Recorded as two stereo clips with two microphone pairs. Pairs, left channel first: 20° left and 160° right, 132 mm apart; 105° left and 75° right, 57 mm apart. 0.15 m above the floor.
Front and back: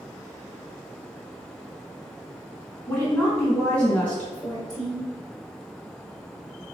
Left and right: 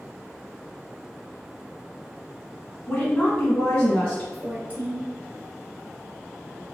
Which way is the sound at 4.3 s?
25° right.